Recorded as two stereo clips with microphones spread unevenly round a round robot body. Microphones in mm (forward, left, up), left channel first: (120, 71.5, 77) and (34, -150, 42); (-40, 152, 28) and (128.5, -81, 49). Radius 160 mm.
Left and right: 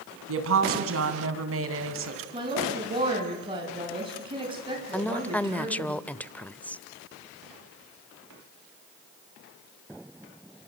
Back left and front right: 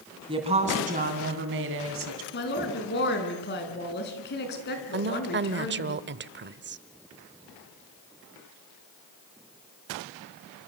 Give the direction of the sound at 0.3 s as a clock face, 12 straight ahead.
4 o'clock.